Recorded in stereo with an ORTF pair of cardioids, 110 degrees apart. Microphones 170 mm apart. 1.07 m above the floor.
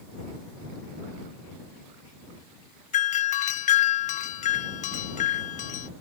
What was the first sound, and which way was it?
A doorbell, 45° left.